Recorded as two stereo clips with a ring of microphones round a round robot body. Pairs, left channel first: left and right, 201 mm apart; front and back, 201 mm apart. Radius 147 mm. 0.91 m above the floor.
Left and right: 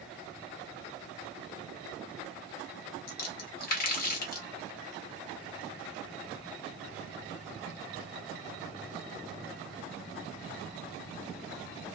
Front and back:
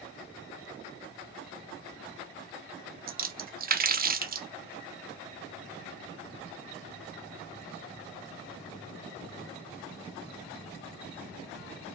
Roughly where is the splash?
Behind left.